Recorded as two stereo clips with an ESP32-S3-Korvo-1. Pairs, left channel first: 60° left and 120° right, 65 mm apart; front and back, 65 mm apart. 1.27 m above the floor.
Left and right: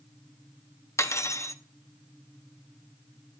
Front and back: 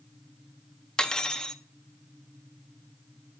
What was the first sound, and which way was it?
Cutlery clinking, 75° left.